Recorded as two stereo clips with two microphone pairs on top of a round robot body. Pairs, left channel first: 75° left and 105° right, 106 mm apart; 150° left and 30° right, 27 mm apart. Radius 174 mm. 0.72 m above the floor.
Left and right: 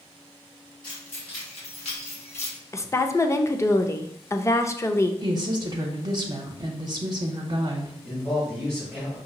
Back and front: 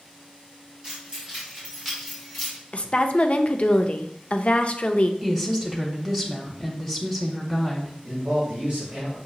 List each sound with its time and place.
0.8 s keys jangling: 30° left, 1.9 m; by 2.6 s 65° left, 1.6 m
2.7 s a woman speaking: 135° left, 0.6 m
5.2 s a woman speaking: 110° right, 1.0 m
8.0 s a man speaking: 10° right, 2 m